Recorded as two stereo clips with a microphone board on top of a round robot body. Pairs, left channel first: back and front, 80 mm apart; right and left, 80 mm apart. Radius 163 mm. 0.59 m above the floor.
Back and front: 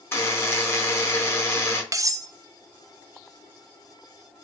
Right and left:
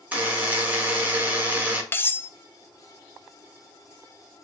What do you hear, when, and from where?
0.1 s a buzzer: 145° left, 1.4 m
1.9 s cutlery clinking: 35° right, 0.5 m